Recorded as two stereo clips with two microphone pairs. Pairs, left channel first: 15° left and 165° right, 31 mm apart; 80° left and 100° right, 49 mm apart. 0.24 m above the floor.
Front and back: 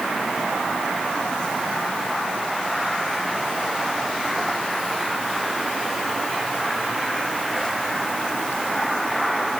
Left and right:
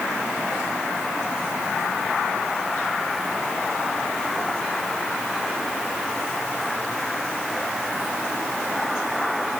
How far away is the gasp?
No gasp in this recording.